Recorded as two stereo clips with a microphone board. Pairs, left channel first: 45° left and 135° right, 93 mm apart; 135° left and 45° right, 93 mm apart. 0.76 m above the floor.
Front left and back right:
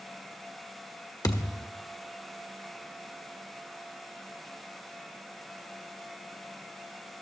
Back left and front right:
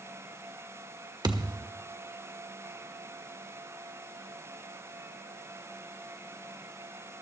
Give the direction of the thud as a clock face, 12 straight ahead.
12 o'clock.